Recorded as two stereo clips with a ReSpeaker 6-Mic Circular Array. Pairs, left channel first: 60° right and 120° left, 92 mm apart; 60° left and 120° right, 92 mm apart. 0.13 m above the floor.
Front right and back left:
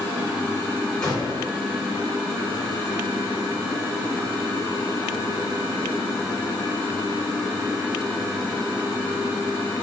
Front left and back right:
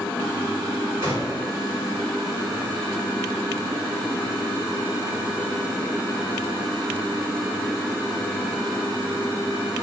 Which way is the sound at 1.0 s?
125° right.